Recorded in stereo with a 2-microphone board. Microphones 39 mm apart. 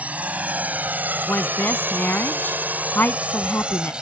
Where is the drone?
40° right (ahead or behind); by 4.0 s 25° right (ahead or behind).